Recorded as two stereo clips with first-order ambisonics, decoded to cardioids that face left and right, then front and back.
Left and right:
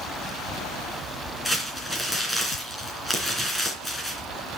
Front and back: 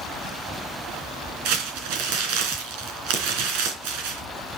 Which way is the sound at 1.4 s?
175° left.